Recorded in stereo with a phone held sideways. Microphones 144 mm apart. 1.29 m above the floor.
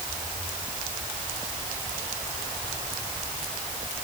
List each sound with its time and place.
Only background noise.